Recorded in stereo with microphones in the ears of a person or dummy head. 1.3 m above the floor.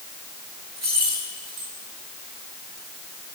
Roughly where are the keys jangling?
Centre.